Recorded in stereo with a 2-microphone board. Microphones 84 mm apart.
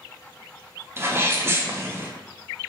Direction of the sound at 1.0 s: 30° right (ahead or behind).